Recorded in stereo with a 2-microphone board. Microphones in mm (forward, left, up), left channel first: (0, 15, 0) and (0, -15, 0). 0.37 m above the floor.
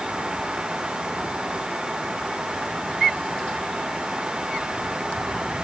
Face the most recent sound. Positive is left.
No sound to turn to.